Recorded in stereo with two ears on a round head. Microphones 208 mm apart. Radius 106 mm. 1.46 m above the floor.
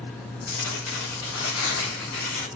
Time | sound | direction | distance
0.5 | tearing paper | 80° left | 3.5 m